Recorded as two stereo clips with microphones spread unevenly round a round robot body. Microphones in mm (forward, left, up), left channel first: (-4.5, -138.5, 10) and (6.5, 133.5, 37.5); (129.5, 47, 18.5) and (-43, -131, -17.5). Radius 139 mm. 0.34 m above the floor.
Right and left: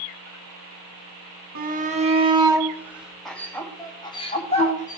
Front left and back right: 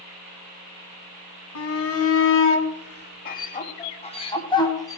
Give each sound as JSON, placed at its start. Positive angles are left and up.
{"t": 1.6, "sound": "a shout", "azimuth_deg": 30, "distance_m": 2.0}